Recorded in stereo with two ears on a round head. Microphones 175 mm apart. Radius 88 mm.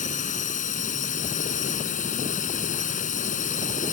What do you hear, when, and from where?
0.0 s a drone: 40° left (ahead or behind)